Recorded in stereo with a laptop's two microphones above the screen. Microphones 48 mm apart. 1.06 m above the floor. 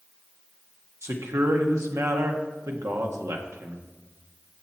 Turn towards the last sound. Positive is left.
turn(degrees=-80)